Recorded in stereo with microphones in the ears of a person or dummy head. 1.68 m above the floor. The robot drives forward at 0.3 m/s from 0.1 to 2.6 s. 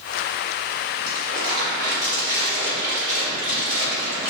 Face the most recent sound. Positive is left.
turn(degrees=-55)  # may be behind; listen again after turning